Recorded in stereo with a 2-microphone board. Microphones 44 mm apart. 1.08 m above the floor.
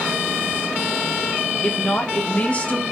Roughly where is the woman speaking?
Left.